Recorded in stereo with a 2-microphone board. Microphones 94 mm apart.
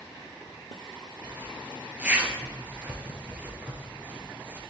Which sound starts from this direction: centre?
A zipper, at 1.2 s.